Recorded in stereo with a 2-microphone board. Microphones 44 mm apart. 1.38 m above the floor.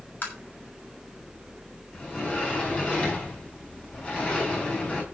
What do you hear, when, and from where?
0.2 s tapping: 45° left (ahead or behind), 6.5 m
1.9 s a sliding door: 25° left (ahead or behind), 4.5 m